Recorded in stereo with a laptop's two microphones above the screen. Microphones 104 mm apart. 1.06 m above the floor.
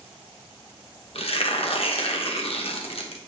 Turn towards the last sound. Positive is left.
turn(degrees=70)  # may be behind; listen again after turning